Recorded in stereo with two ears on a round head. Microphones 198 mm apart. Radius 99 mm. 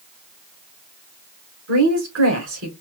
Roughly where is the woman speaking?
Right.